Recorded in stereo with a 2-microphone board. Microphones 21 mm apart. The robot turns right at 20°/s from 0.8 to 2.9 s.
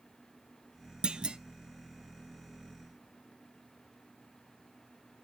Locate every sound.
1.0 s a clunk: 60° right (ahead or behind), 0.5 m; by 1.4 s 55° right (ahead or behind), 0.5 m